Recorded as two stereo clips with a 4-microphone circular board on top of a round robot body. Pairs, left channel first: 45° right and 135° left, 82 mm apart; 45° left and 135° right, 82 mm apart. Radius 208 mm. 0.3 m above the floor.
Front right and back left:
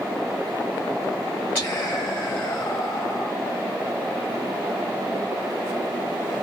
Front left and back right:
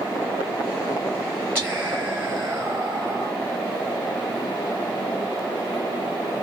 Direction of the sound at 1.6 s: 100° right.